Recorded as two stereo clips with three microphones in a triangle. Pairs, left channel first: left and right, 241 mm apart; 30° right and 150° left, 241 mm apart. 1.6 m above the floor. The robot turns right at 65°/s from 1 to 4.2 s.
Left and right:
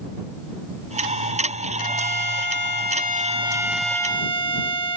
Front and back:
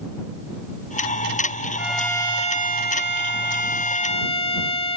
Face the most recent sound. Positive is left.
turn(degrees=25)